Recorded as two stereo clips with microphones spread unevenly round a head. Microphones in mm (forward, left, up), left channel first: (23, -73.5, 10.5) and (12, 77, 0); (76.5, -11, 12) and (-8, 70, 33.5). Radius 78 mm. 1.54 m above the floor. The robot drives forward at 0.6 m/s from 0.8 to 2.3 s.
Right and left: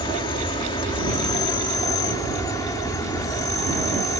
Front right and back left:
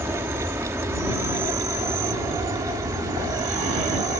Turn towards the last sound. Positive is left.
turn(degrees=-155)